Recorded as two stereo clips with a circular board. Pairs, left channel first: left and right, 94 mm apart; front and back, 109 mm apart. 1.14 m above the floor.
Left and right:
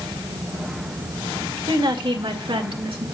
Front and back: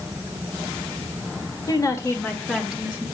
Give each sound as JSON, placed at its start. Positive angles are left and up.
{"t": 1.7, "sound": "a woman speaking", "azimuth_deg": -50, "distance_m": 2.5}